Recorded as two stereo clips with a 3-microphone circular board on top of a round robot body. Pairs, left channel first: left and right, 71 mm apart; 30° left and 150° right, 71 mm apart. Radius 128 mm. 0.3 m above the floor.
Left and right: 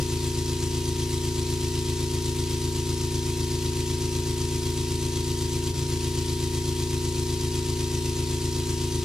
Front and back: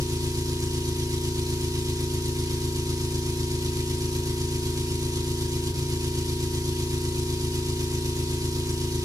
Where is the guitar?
No guitar in this recording.